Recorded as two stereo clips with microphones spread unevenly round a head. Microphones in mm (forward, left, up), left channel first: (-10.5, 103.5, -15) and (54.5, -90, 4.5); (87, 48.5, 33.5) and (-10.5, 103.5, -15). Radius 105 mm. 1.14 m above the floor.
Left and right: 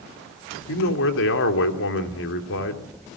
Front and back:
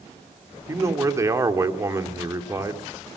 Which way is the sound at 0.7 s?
90° left.